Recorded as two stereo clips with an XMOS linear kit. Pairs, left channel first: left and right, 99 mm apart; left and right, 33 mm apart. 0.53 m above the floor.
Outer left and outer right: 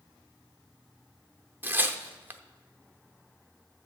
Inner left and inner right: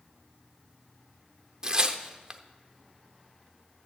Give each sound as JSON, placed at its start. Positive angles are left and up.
{"t": 1.6, "sound": "tearing paper", "side_deg": -20, "distance_m": 0.8}